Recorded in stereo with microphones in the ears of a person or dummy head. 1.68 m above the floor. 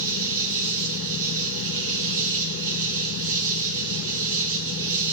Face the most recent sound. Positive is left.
turn(degrees=-70)  # may be behind; listen again after turning